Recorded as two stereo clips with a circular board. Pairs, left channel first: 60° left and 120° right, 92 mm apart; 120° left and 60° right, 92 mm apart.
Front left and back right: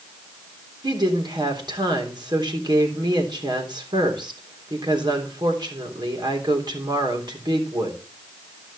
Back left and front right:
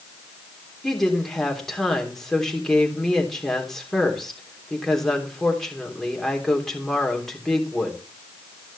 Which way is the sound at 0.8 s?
155° right.